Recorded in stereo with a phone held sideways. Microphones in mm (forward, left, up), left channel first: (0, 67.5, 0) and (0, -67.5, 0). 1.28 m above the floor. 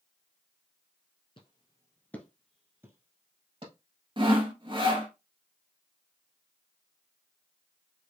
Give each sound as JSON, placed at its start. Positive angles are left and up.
{"t": 1.4, "sound": "footsteps", "side_deg": 40, "distance_m": 1.6}
{"t": 4.2, "sound": "sawing", "side_deg": -40, "distance_m": 0.9}